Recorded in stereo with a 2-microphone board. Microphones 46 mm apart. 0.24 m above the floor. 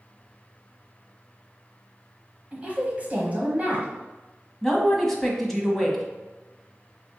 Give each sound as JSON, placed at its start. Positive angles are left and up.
{"t": 2.5, "sound": "a woman speaking", "side_deg": -30, "distance_m": 1.1}
{"t": 4.6, "sound": "a man speaking", "side_deg": 5, "distance_m": 1.2}